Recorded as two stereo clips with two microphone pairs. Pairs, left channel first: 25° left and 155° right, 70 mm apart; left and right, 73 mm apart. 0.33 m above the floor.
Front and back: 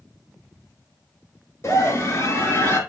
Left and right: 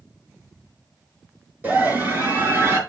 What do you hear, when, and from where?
1.6 s a scream: 25° right, 5 m; by 2.8 s 35° right, 5 m